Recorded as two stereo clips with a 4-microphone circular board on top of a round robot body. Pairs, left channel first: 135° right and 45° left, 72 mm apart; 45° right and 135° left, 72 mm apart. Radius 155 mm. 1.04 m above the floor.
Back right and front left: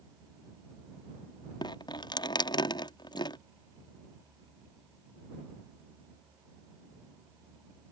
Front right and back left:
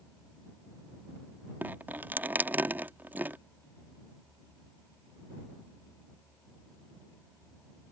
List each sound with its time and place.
1.6 s dripping: 155° right